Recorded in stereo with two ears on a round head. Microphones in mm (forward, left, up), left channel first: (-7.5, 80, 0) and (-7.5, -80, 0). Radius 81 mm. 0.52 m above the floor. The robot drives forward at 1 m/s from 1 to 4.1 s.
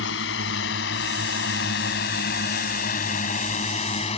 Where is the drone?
75° left (ahead or behind); by 4.2 s 35° left (ahead or behind).